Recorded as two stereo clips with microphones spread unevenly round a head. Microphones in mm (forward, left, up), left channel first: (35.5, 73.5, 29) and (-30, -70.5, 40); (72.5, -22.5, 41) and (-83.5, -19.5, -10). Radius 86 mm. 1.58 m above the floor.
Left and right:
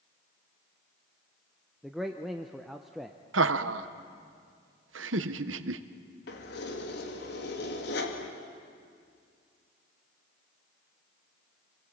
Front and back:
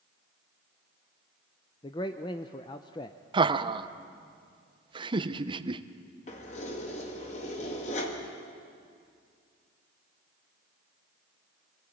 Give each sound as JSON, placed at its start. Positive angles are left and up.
{"t": 1.8, "sound": "a man speaking", "azimuth_deg": -30, "distance_m": 0.7}
{"t": 3.3, "sound": "laughter", "azimuth_deg": -115, "distance_m": 1.0}
{"t": 6.3, "sound": "keys jangling", "azimuth_deg": 45, "distance_m": 2.0}